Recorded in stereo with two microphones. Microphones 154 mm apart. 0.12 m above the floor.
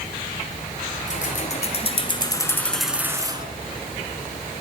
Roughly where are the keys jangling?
Left.